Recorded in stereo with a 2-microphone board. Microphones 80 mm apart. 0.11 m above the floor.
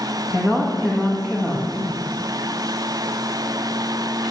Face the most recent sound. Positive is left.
turn(degrees=5)  # may be behind; listen again after turning